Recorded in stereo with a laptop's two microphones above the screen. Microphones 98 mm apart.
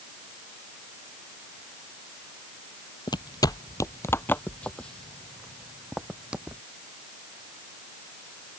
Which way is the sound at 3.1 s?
50° left (ahead or behind).